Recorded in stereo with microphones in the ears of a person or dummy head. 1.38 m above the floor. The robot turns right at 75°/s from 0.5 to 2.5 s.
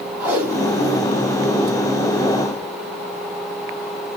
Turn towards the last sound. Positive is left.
turn(degrees=-20)  # may be behind; listen again after turning